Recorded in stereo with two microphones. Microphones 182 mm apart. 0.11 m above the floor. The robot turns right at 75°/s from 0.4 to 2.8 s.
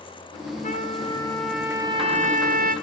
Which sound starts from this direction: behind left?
A trumpet, at 0.6 s.